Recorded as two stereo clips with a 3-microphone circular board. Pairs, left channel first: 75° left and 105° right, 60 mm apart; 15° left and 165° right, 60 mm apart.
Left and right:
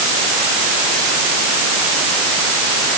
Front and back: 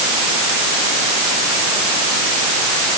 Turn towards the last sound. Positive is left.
No sound to turn to.